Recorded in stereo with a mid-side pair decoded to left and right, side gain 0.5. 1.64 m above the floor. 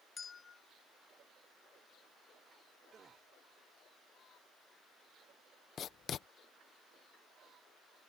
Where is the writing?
55° left.